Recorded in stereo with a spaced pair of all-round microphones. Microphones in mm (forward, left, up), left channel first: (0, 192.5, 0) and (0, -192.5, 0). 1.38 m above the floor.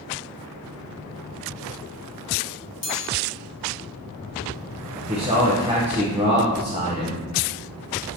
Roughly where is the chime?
Left.